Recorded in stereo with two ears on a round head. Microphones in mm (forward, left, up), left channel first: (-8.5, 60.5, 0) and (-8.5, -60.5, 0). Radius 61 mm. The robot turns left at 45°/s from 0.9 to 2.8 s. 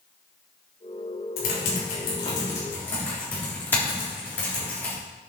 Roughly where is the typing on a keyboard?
Left.